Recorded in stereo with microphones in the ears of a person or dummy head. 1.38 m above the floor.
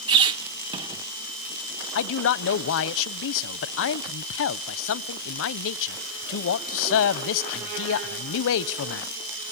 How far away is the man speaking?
About 0.6 m.